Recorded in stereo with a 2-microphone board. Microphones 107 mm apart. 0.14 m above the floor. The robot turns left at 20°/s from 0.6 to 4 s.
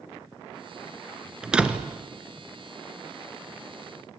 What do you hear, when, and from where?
1.4 s a door slam: 5° right (ahead or behind), 1.6 m; by 1.9 s 15° right (ahead or behind), 1.6 m